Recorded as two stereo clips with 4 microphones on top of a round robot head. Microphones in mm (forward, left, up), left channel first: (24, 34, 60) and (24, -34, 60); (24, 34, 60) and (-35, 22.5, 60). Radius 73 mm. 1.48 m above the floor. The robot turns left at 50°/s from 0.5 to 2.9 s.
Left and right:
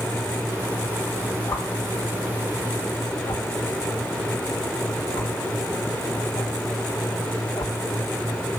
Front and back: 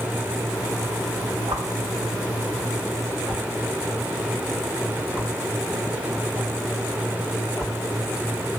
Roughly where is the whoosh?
Behind.